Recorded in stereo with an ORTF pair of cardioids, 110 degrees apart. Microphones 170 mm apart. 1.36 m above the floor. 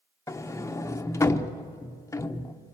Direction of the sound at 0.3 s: 15° left.